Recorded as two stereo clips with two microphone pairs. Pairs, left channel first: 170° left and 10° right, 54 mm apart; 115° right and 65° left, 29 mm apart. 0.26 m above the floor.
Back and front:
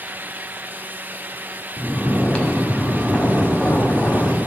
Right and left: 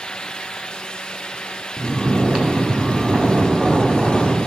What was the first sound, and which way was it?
Snoring, 105° left.